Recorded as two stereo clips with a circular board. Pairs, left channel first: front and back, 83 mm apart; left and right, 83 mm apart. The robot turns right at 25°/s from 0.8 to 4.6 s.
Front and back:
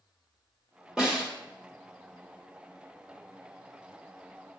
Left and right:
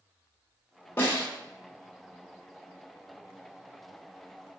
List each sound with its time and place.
1.0 s a snare drum: 110° left, 1.4 m; by 1.3 s 115° left, 1.4 m